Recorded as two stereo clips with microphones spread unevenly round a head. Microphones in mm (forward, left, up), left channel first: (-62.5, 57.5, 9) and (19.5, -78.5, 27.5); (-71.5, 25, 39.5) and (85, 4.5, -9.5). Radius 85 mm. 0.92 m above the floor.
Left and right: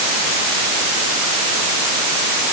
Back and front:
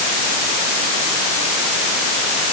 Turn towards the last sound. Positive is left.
No sound to turn to.